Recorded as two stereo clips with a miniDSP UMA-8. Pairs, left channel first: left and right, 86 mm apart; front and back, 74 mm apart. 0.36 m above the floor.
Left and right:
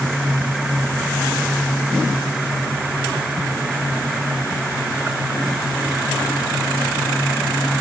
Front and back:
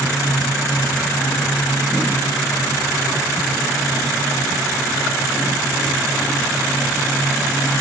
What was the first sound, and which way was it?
Only background noise.